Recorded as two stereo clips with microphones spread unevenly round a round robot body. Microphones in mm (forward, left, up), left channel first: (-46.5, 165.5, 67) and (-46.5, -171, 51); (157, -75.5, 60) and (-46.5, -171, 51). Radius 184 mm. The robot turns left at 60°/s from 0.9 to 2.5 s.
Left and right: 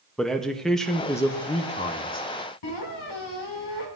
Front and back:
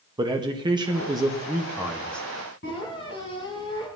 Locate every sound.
0.2 s a man speaking: 175° right, 1.1 m; by 2.3 s 100° left, 1.1 m
2.6 s a squeak: 85° left, 3.5 m